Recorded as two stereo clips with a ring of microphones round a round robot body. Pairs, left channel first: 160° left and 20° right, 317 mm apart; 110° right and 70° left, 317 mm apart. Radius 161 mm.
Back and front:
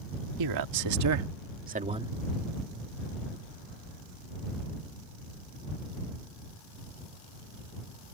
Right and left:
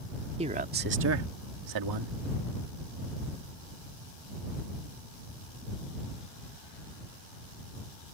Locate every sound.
0.4 s a man speaking: 5° right; by 2.1 s 60° left